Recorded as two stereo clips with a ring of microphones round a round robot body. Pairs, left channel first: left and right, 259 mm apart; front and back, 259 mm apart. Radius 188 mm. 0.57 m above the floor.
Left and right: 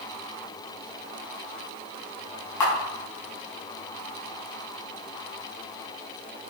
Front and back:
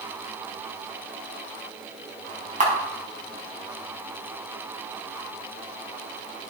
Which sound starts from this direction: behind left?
A camera shutter, at 2.6 s.